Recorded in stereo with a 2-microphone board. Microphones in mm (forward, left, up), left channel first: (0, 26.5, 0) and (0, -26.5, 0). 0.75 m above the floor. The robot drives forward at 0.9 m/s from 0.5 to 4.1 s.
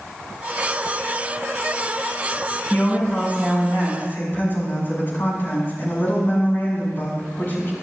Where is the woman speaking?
35° left (ahead or behind), 6.5 m; by 7.7 s 40° left (ahead or behind), 5.5 m.